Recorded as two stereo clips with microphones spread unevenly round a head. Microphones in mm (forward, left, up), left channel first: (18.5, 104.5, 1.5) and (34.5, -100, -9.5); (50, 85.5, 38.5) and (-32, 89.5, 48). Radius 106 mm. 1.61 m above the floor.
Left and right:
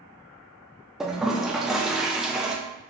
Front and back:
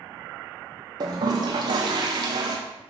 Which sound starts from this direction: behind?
A toilet flushing, at 1.0 s.